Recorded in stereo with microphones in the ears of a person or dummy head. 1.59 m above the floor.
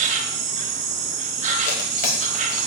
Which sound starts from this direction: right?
An insect, at 0.0 s.